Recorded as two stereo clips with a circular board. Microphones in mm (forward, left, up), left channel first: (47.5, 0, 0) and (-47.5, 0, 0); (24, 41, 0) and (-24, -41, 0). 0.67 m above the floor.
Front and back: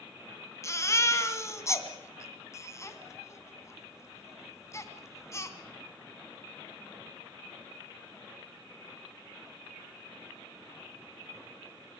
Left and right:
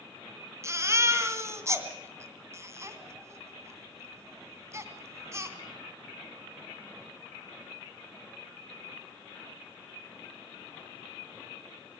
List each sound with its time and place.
0.6 s a baby crying: 60° right, 2.5 m